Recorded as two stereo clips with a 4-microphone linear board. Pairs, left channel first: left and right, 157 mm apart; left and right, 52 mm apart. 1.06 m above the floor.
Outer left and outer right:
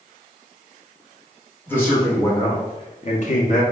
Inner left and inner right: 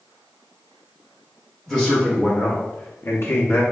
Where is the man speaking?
15° left (ahead or behind), 1.3 m; by 3.6 s 55° left (ahead or behind), 0.6 m.